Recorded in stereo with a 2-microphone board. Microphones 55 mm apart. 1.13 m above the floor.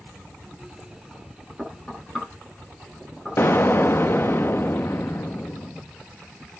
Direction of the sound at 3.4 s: 40° left (ahead or behind).